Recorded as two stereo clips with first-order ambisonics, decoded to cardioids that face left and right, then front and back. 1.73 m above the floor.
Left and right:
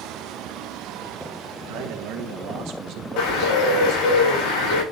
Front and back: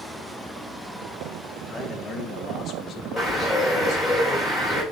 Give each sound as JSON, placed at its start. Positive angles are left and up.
{"t": 1.7, "sound": "a man speaking", "azimuth_deg": -80, "distance_m": 1.9}
{"t": 3.2, "sound": "a bird", "azimuth_deg": 90, "distance_m": 5.5}